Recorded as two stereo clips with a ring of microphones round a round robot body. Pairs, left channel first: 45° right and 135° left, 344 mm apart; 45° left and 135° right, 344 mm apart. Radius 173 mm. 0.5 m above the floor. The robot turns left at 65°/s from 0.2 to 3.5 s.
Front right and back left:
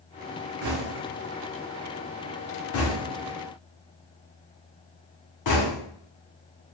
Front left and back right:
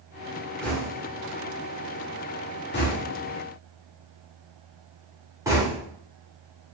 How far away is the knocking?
About 1.0 m.